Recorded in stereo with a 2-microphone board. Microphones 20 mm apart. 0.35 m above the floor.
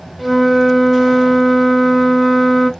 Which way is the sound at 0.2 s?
10° right (ahead or behind).